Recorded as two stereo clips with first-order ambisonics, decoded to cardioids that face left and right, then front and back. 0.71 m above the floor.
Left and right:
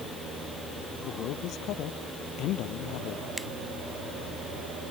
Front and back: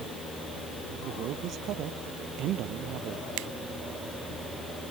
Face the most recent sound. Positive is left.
turn(degrees=-175)